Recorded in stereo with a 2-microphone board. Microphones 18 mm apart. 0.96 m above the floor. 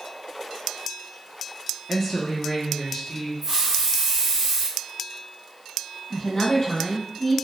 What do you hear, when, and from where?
1.9 s a woman speaking: 5° left (ahead or behind), 0.8 m; by 3.3 s 25° left (ahead or behind), 1.5 m
3.4 s a hiss: 15° right (ahead or behind), 1.0 m
6.1 s a woman speaking: 45° left (ahead or behind), 1.6 m